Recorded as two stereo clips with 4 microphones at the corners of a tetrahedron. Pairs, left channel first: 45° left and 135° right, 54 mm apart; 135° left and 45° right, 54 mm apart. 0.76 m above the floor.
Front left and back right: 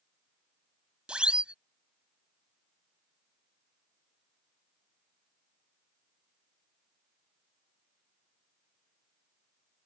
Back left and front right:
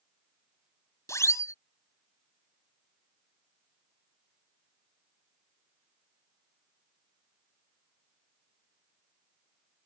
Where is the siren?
155° left.